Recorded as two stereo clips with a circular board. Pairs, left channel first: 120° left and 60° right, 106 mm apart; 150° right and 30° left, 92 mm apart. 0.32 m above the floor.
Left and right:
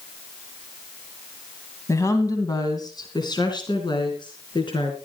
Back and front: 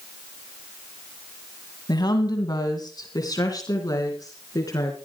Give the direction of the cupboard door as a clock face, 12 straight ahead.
No cupboard door in this recording.